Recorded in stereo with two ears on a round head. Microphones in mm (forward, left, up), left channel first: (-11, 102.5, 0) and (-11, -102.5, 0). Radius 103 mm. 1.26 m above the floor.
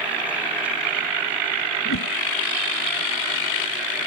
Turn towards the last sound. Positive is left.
turn(degrees=60)  # may be behind; listen again after turning